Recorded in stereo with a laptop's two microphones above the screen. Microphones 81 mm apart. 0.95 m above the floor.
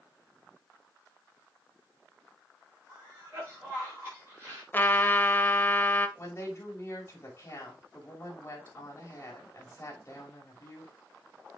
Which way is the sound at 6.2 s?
35° left (ahead or behind).